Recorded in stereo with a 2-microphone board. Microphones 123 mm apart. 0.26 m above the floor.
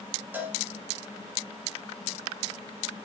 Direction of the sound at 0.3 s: 15° right (ahead or behind).